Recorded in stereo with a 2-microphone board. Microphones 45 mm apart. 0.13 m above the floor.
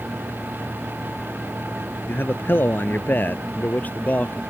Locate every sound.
2.1 s a man speaking: 50° left (ahead or behind); by 4.4 s 35° left (ahead or behind)